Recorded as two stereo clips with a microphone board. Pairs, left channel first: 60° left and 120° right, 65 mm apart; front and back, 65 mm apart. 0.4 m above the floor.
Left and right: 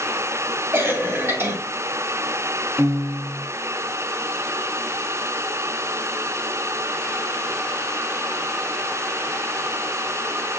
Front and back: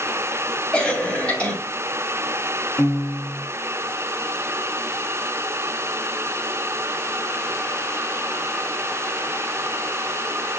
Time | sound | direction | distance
0.7 | a cough | 70° right | 2.5 m
2.8 | a piano | 55° right | 1.8 m